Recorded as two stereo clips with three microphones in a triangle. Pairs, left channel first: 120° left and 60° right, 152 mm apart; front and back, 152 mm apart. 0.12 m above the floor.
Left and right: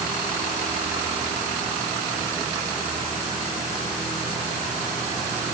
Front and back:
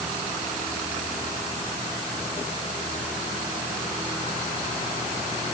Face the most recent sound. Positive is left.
No sound to turn to.